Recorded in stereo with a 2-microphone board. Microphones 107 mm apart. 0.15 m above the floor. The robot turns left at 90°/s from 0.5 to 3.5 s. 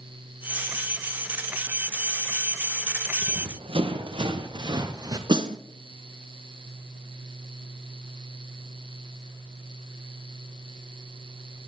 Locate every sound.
3.2 s running footsteps: 90° right, 2.5 m; by 5.2 s 35° right (ahead or behind), 2 m
5.3 s a snare drum: 45° right (ahead or behind), 1.1 m